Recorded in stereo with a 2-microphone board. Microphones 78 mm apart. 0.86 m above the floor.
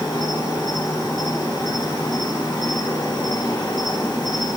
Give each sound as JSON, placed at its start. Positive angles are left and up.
{"t": 0.0, "sound": "an insect", "side_deg": 70, "distance_m": 1.4}